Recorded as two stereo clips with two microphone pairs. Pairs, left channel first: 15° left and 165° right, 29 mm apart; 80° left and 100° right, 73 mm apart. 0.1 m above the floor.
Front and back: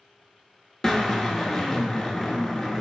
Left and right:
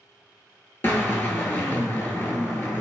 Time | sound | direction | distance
0.8 | a drill | 70° left | 0.6 m